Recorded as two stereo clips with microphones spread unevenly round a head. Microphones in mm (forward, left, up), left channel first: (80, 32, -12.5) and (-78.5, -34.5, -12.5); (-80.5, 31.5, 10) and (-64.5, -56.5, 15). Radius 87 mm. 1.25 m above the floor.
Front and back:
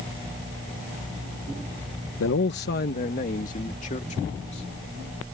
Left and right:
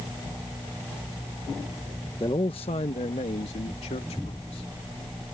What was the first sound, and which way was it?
A man speaking, 35° left.